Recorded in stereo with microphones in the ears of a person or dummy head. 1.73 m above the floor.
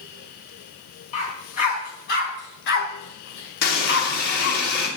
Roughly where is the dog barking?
Left.